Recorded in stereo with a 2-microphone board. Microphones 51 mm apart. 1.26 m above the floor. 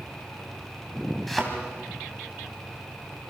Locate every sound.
1.3 s a thud: centre (ahead or behind), 3.5 m